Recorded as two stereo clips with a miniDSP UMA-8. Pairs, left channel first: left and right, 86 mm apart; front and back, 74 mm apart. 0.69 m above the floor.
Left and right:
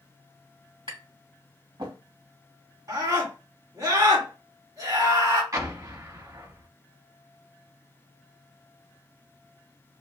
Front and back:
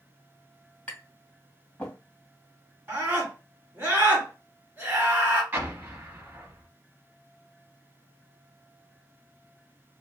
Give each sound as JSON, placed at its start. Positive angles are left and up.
{"t": 0.9, "sound": "tapping", "azimuth_deg": -75, "distance_m": 1.8}
{"t": 2.9, "sound": "a scream", "azimuth_deg": -125, "distance_m": 1.9}
{"t": 5.5, "sound": "an explosion", "azimuth_deg": -125, "distance_m": 0.8}